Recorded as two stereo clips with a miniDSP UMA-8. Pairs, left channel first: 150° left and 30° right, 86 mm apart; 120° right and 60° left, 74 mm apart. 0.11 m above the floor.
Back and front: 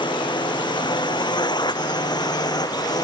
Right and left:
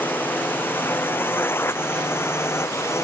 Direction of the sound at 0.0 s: 175° left.